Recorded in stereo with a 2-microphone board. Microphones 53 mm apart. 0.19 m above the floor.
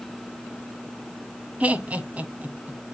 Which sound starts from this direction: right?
Laughter, at 1.6 s.